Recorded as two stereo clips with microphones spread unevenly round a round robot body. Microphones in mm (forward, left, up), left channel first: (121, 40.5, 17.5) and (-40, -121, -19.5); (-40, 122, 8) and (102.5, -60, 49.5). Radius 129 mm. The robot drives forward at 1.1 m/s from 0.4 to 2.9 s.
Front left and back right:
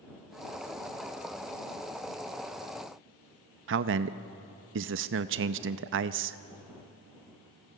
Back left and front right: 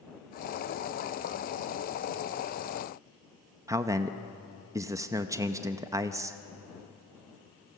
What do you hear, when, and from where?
3.7 s a man speaking: 135° right, 0.6 m